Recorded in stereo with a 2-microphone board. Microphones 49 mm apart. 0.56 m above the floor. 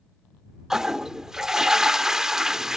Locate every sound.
0.7 s a toilet flushing: 10° right (ahead or behind)